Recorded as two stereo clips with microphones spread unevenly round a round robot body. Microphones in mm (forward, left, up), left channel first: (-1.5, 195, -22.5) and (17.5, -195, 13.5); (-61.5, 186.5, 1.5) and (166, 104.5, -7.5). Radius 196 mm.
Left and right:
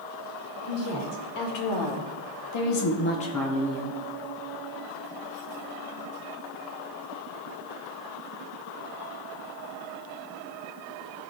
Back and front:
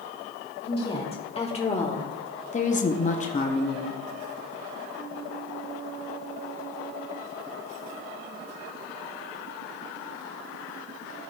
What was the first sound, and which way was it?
A woman speaking, 90° left.